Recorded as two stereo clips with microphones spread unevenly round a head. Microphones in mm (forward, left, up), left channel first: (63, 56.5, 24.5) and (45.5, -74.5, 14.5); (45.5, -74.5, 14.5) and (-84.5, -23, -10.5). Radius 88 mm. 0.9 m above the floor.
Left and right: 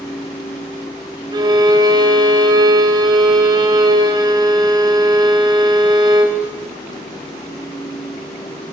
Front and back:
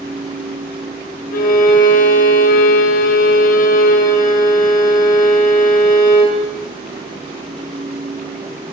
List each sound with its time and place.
1.3 s a violin: 35° right, 1.0 m